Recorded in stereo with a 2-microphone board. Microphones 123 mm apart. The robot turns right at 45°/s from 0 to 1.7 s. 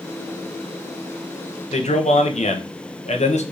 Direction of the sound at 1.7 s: 70° left (ahead or behind).